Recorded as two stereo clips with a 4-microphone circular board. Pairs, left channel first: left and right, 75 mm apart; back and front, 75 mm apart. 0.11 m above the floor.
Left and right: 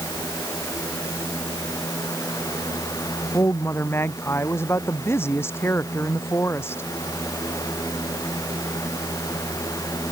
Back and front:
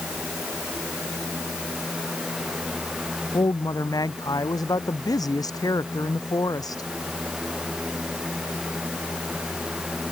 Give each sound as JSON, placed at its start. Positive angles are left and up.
{"t": 3.3, "sound": "a woman speaking", "azimuth_deg": 150}